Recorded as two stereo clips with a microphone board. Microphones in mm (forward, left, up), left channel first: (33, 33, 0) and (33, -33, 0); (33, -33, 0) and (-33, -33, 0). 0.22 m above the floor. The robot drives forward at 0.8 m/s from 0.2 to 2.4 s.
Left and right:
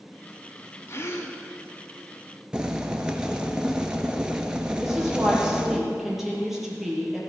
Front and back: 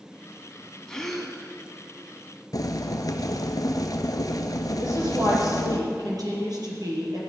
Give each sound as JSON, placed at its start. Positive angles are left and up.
{"t": 0.9, "sound": "a gasp", "azimuth_deg": 75, "distance_m": 1.4}
{"t": 2.5, "sound": "boiling", "azimuth_deg": -15, "distance_m": 1.2}
{"t": 4.8, "sound": "a woman speaking", "azimuth_deg": -175, "distance_m": 5.5}